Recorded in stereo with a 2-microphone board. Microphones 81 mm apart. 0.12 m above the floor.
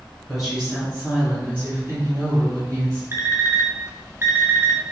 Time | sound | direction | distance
0.3 | a woman speaking | 5° right (ahead or behind) | 1.5 m
3.1 | an alarm clock | 30° right (ahead or behind) | 0.6 m